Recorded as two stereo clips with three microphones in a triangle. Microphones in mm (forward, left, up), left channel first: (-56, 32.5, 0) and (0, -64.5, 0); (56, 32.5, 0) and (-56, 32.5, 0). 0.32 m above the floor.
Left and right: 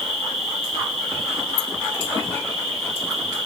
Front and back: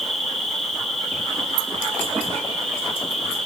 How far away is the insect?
About 6.5 m.